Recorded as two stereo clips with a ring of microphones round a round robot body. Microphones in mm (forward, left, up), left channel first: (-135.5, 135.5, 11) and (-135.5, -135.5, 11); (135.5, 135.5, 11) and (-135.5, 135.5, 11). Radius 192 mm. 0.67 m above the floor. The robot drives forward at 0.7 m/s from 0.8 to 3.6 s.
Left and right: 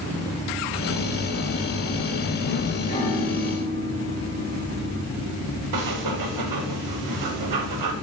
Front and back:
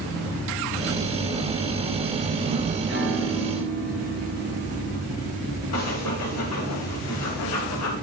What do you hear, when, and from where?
2.9 s a piano: 145° left, 3.5 m; by 5.0 s 150° left, 4 m
5.7 s breathing: 55° right, 1.1 m